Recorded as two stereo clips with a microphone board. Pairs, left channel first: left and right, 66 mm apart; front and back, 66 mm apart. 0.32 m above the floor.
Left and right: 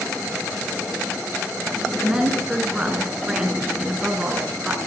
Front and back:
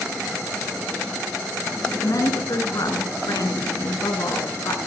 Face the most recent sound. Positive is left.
turn(degrees=-15)